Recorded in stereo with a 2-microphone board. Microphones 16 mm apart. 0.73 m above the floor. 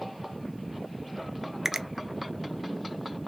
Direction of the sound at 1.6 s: 30° right (ahead or behind).